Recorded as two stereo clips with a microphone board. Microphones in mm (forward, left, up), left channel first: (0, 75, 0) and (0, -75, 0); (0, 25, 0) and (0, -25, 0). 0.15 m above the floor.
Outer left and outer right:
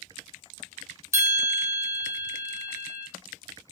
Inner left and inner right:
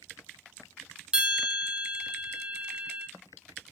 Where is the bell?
20° right (ahead or behind), 1.2 m.